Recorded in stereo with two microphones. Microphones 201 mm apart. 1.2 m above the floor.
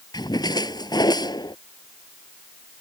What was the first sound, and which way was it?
A splash, 20° left (ahead or behind).